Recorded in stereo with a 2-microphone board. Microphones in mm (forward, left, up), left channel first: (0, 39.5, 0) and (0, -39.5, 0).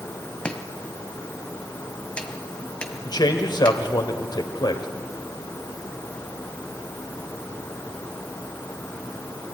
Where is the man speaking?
65° left (ahead or behind), 2 m.